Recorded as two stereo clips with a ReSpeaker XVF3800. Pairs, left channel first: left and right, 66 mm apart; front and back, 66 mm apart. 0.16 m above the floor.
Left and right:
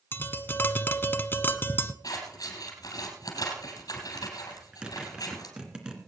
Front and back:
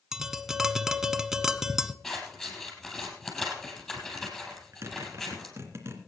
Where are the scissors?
90° left, 4 m.